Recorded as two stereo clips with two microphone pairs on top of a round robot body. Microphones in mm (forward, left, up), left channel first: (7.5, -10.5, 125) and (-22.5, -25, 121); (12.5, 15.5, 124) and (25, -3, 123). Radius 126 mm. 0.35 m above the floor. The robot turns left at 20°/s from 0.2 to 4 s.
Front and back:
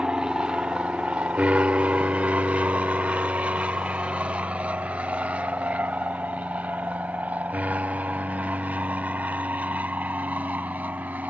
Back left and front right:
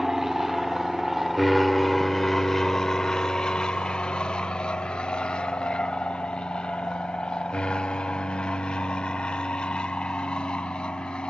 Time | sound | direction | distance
0.0 | an aircraft | 120° right | ?